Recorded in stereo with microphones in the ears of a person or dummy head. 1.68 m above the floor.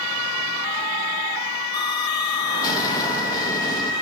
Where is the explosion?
20° left (ahead or behind), 1.2 m.